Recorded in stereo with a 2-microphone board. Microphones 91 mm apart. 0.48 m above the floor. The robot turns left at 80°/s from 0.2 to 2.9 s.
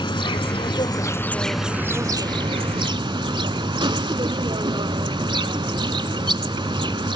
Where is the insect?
110° left, 0.7 m; by 7.2 s 105° right, 0.7 m.